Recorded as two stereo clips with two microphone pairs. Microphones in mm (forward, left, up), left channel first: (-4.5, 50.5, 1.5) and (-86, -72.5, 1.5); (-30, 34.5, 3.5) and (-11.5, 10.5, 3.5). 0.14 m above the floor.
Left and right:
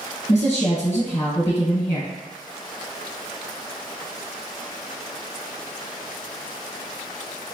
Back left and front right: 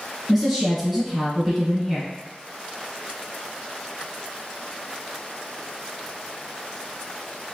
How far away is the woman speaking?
About 1.5 m.